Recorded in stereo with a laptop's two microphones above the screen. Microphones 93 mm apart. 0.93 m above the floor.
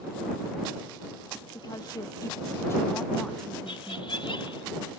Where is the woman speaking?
50° left (ahead or behind); by 4.2 s 20° right (ahead or behind).